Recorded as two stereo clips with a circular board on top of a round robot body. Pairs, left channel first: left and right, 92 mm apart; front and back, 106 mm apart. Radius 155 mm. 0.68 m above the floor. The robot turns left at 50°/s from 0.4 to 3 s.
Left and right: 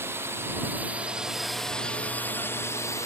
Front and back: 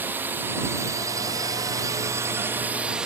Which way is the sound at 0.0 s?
125° right.